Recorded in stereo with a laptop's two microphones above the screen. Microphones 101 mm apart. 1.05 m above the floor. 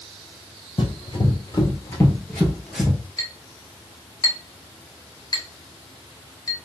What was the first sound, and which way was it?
Running footsteps, 55° left (ahead or behind).